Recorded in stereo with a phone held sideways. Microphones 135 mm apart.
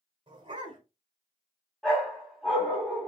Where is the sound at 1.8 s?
Centre (ahead or behind), 2.5 m.